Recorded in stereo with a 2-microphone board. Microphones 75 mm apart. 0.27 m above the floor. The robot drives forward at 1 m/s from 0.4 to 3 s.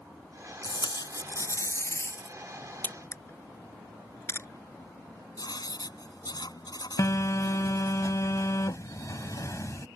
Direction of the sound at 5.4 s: 65° left (ahead or behind).